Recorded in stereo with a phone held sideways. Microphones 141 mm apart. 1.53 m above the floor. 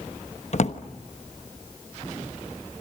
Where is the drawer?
55° left (ahead or behind), 1.1 m.